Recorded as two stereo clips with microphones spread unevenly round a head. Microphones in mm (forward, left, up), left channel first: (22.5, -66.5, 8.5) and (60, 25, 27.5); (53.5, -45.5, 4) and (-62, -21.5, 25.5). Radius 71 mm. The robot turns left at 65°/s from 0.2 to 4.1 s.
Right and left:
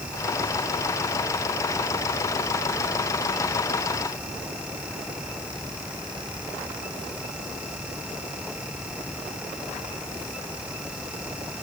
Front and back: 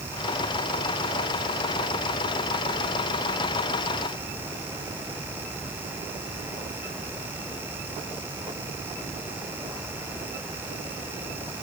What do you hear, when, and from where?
Only background noise.